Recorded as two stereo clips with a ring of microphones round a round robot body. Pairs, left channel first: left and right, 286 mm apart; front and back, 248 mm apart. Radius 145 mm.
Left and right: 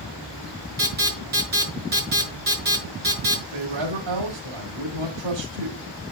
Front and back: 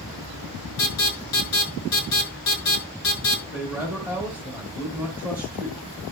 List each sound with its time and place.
0.8 s an alarm: 30° right, 7.5 m
3.5 s a man speaking: 95° right, 2 m